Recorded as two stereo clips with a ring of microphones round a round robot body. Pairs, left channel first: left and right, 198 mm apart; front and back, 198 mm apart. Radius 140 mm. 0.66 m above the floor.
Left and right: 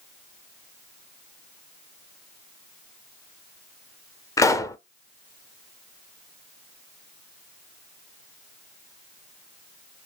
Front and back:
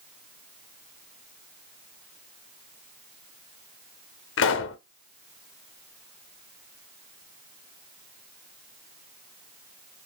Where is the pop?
15° left, 0.5 m.